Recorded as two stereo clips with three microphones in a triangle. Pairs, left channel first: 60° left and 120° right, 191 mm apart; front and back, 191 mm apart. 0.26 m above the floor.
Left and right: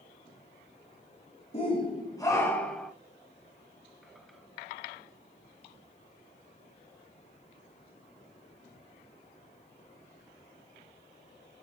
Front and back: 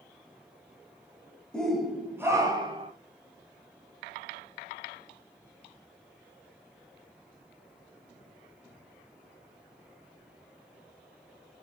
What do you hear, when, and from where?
1.5 s a shout: 85° left, 1.2 m; by 2.9 s 145° left, 1.2 m